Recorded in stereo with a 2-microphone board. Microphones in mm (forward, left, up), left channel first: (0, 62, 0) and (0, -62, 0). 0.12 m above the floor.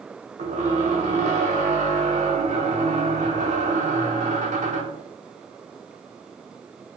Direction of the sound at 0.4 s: 90° right.